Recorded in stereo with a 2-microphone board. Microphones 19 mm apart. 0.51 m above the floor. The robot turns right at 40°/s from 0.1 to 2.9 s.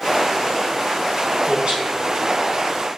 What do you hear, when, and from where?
1.4 s a man speaking: 80° right, 4 m; by 1.9 s 65° right (ahead or behind), 4 m